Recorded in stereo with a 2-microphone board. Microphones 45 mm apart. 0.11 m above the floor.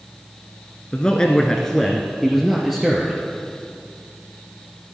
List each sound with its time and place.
0.9 s a man speaking: 20° left (ahead or behind), 1.3 m; by 3.2 s 15° right (ahead or behind), 2 m